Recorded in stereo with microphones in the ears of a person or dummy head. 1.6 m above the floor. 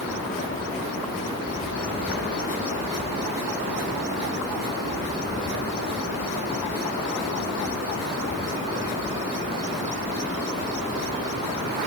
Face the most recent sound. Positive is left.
No sound to turn to.